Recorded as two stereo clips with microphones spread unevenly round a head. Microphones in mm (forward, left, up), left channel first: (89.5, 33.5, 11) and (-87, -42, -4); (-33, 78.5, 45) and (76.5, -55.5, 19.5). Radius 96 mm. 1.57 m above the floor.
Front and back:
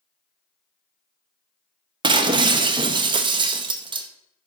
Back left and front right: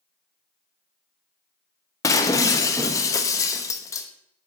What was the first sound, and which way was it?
Breaking glass, 160° left.